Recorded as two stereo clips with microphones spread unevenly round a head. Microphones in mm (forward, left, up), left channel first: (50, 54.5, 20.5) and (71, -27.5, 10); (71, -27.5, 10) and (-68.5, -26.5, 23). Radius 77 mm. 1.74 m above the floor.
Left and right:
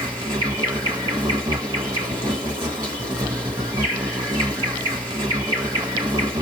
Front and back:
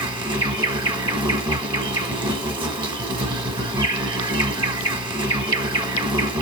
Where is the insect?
125° right, 1.4 m.